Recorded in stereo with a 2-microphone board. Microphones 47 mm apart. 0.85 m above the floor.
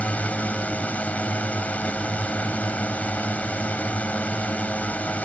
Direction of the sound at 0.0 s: 30° left (ahead or behind).